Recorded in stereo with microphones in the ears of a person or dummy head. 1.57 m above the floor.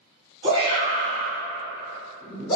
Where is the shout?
30° right (ahead or behind), 1.5 m; by 2.6 s 40° left (ahead or behind), 1.2 m.